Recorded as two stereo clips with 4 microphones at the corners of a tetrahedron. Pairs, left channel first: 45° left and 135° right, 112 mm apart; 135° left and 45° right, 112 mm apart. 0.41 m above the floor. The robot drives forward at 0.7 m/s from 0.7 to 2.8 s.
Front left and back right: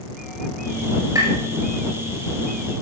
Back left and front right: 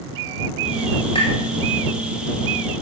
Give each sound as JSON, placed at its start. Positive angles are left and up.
{"t": 1.1, "sound": "tapping", "azimuth_deg": 165, "distance_m": 6.0}